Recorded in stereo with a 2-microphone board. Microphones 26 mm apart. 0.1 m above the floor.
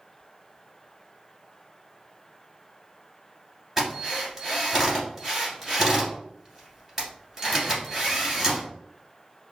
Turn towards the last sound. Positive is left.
turn(degrees=-15)  # may be behind; listen again after turning